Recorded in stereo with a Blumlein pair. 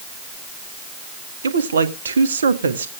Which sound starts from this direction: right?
A woman speaking, at 1.4 s.